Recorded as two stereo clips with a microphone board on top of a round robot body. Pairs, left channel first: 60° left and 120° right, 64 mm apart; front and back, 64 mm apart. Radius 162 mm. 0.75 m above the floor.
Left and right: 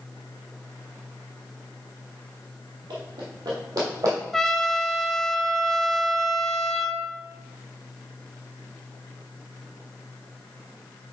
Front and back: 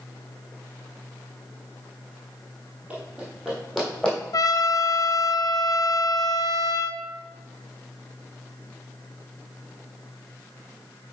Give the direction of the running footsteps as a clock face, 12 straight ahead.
4 o'clock.